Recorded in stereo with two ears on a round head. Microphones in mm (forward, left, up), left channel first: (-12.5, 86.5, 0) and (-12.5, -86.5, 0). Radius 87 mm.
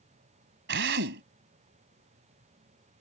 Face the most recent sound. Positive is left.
turn(degrees=-60)  # may be behind; listen again after turning